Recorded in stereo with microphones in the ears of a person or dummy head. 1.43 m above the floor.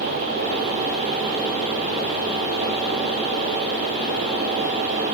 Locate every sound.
Only background noise.